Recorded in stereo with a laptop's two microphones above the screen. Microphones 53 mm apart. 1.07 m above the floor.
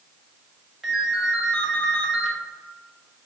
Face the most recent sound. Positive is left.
turn(degrees=-5)  # may be behind; listen again after turning